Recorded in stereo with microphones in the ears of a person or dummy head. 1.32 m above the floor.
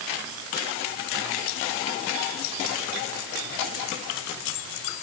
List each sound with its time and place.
Only background noise.